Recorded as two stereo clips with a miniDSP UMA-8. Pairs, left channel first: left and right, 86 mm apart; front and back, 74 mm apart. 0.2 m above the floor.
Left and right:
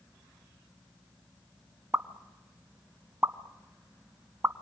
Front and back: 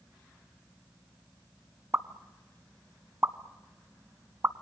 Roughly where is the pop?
Behind right.